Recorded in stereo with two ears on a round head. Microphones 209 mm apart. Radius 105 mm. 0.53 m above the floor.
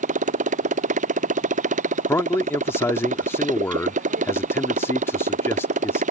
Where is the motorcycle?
30° right (ahead or behind).